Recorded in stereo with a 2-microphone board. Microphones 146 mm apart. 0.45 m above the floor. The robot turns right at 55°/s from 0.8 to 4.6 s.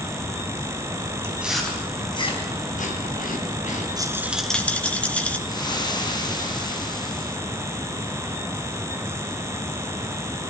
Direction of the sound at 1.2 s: 15° right (ahead or behind).